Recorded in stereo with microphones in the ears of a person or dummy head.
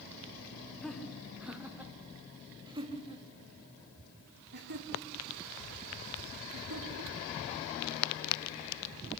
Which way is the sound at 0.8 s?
5° left (ahead or behind).